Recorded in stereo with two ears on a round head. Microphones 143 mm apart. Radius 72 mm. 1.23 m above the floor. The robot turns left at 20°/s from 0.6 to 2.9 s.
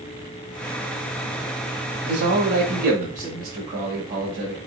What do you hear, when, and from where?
2.0 s a man speaking: 75° right (ahead or behind), 1.7 m; by 4.6 s 60° right (ahead or behind), 1.7 m